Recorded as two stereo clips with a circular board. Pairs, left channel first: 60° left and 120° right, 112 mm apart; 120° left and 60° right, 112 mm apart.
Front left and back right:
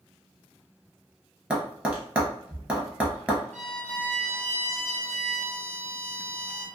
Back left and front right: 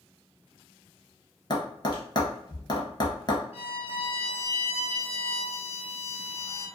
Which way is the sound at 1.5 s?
160° left.